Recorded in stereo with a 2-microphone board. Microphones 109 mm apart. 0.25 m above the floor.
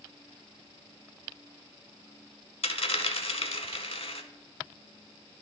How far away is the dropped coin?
About 0.7 m.